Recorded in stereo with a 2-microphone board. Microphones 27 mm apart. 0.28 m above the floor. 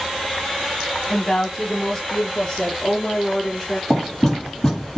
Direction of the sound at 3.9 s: 20° left (ahead or behind).